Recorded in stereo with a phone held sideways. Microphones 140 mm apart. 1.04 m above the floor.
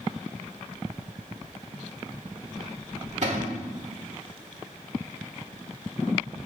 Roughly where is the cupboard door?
Right.